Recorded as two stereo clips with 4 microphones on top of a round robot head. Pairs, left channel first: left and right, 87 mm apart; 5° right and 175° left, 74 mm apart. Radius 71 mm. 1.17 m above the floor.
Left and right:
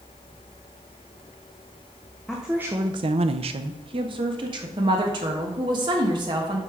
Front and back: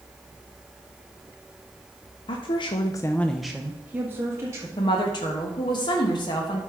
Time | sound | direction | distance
2.3 | a woman speaking | straight ahead | 0.7 m
4.8 | a woman speaking | 45° right | 1.2 m